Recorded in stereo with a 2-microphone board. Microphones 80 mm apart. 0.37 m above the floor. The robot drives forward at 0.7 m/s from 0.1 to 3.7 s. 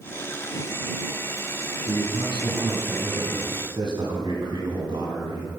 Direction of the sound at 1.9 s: 65° right (ahead or behind).